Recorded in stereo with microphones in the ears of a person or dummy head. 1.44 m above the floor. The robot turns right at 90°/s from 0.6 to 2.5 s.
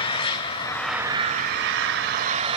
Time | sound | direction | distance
0.0 | an engine running | 155° left | 2.5 m